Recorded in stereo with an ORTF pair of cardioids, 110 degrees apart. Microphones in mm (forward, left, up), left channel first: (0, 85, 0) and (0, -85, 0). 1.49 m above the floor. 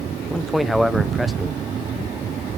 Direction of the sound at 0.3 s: Straight ahead.